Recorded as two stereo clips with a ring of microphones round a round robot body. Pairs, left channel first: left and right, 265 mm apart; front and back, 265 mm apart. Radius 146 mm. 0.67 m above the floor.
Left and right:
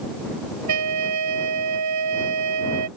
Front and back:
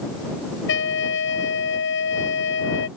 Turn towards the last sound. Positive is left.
turn(degrees=-55)